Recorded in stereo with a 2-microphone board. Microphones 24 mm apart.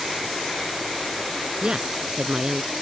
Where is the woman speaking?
35° right (ahead or behind).